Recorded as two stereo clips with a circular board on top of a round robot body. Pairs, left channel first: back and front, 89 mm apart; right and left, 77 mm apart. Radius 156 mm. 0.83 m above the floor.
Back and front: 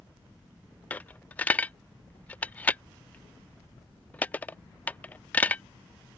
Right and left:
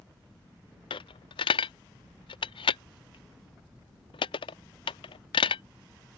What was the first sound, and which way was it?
A dropped coin, 105° right.